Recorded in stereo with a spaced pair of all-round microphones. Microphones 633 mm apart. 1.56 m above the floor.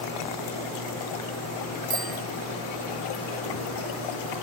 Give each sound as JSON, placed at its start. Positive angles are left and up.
{"t": 1.9, "sound": "a bicycle bell", "side_deg": 15}